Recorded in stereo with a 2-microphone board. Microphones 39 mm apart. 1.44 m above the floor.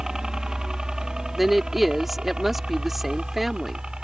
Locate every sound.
0.0 s a helicopter: 15° right (ahead or behind); by 4.0 s 25° right (ahead or behind)
1.4 s a woman speaking: 5° right (ahead or behind)